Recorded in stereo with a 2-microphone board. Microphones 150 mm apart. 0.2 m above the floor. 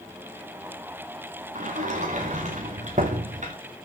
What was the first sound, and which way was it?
A sliding door, 60° right (ahead or behind).